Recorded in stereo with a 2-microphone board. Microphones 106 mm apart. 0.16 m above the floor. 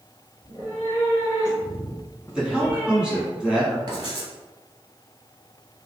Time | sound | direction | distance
0.4 | a cat meowing | 15° left (ahead or behind) | 1.9 m
2.4 | a man speaking | 10° right (ahead or behind) | 1.3 m
3.9 | writing | 40° right (ahead or behind) | 1.5 m